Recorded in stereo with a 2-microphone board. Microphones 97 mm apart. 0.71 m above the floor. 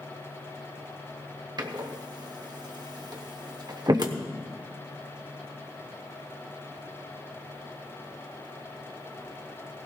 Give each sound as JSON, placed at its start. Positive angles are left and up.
{"t": 1.6, "sound": "a door slam", "side_deg": -50, "distance_m": 1.0}